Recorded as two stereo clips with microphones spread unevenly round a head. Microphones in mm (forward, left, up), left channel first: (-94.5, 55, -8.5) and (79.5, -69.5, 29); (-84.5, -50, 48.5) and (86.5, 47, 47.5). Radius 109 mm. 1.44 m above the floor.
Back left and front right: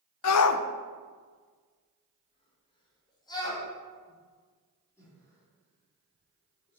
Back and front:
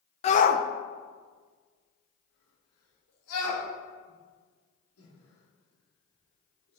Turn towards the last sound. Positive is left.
turn(degrees=-135)